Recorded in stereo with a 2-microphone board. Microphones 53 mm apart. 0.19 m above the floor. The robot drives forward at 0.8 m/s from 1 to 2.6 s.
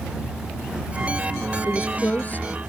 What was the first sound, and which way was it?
A woman speaking, 35° left (ahead or behind).